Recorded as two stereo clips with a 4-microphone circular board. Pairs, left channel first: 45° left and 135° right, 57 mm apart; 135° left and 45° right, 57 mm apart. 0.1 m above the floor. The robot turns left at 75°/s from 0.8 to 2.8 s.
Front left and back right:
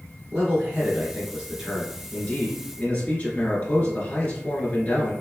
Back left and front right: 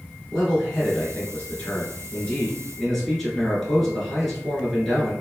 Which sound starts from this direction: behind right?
A man speaking, at 0.3 s.